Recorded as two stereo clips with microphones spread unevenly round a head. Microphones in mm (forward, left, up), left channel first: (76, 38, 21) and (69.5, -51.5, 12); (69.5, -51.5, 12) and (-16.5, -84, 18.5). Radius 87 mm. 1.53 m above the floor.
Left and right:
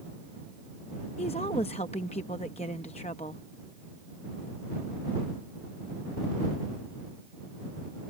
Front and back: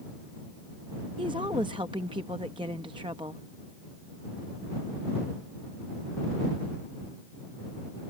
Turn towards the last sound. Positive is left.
turn(degrees=135)